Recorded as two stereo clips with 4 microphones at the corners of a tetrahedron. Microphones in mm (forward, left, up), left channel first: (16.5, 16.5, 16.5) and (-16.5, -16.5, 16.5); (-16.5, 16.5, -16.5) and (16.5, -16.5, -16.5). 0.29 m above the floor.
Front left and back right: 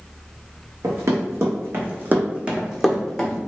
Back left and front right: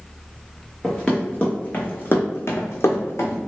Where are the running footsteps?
145° right, 1.1 m; by 3.4 s 120° left, 0.9 m.